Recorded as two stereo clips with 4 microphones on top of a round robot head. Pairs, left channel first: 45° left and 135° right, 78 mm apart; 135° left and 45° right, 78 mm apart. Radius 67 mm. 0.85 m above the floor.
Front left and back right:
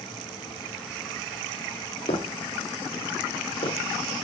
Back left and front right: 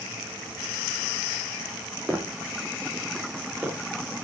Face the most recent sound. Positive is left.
turn(degrees=35)